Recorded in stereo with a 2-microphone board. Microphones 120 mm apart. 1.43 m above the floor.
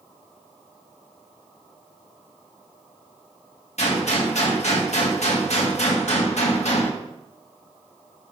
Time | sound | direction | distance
3.8 | a gunshot | 65° left (ahead or behind) | 1.6 m